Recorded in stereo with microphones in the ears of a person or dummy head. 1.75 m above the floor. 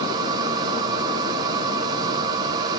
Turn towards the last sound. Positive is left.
turn(degrees=-25)  # may be behind; listen again after turning